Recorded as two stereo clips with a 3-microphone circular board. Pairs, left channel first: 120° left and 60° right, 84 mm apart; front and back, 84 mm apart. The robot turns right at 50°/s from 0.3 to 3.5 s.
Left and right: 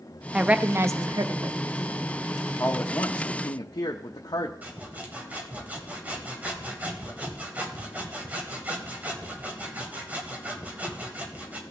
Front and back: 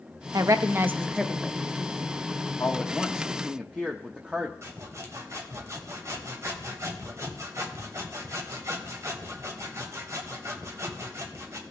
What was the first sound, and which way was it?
A woman speaking, 140° right.